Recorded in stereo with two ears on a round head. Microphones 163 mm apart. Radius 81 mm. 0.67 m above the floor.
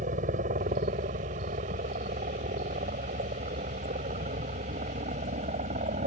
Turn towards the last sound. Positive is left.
turn(degrees=-40)  # may be behind; listen again after turning